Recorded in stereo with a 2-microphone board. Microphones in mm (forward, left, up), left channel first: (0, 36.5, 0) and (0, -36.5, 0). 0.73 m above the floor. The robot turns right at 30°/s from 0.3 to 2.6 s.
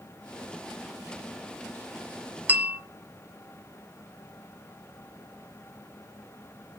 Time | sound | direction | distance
2.5 | a bell | 25° right (ahead or behind) | 1.0 m